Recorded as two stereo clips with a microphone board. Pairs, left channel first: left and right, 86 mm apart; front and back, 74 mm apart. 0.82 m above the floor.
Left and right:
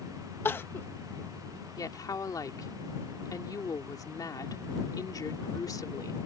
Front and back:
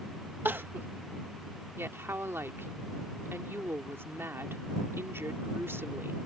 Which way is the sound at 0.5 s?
135° left.